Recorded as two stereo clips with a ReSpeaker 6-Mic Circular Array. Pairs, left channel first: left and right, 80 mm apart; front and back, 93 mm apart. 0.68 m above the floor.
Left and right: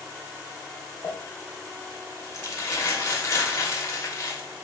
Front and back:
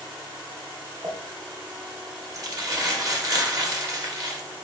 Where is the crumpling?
135° left, 0.9 m.